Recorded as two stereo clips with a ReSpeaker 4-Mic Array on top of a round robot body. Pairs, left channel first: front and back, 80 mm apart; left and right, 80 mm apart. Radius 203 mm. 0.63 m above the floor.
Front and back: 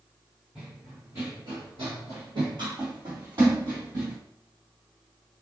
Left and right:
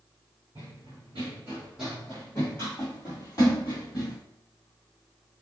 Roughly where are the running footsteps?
Right.